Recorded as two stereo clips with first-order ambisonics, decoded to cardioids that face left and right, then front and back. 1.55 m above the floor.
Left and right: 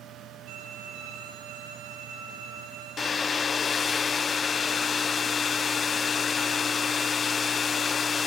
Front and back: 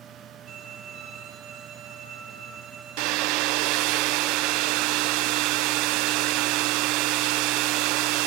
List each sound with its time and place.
0.5 s a violin: 125° right, 10 m
3.0 s a hair dryer: 160° left, 0.6 m